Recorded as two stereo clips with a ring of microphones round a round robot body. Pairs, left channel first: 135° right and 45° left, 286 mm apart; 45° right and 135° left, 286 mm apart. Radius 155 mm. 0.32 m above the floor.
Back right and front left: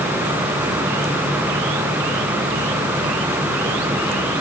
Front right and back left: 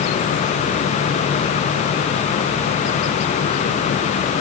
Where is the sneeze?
No sneeze in this recording.